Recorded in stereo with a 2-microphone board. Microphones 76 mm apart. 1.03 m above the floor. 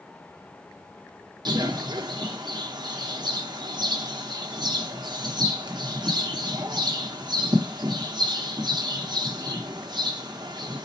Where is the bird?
70° right (ahead or behind), 0.9 m.